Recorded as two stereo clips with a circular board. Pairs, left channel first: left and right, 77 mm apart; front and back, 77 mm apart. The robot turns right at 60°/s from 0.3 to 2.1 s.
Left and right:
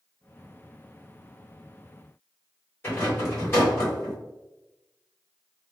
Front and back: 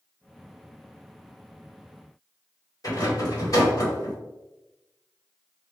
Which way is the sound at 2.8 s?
35° left.